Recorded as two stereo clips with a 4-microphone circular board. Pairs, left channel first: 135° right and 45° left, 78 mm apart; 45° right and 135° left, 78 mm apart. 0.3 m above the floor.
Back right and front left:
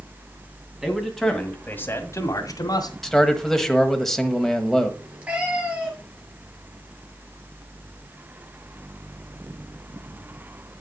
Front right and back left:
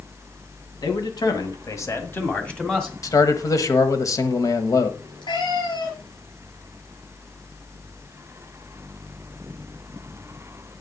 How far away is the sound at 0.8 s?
About 2 m.